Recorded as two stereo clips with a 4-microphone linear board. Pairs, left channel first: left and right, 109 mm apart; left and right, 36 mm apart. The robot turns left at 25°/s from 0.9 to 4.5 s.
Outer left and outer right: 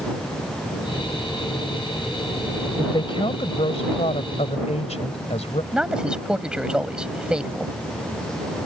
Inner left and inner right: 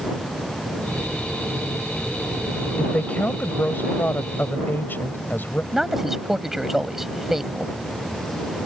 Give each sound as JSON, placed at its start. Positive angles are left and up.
{"t": 2.8, "sound": "a woman speaking", "azimuth_deg": 135}
{"t": 5.7, "sound": "a man speaking", "side_deg": -10}